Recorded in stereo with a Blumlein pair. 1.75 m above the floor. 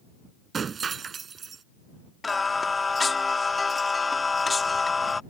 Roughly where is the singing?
Ahead.